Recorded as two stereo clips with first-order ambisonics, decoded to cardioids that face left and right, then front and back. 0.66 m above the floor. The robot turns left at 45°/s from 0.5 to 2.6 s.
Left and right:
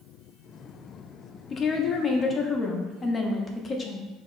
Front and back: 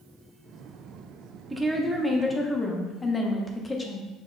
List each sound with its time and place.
1.5 s a woman speaking: 105° left, 0.5 m; by 4.1 s 55° left, 0.5 m